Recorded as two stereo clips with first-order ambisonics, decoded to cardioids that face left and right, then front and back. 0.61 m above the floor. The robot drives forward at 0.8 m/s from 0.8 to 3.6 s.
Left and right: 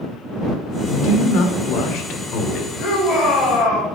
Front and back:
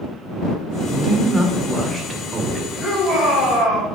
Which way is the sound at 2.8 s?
100° left.